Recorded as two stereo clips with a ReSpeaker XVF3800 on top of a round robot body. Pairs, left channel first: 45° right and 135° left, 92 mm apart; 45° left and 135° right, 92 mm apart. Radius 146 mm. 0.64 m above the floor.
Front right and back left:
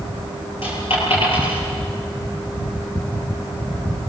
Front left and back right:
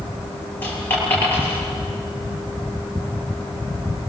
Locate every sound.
0.6 s a dropped coin: 25° right, 7.5 m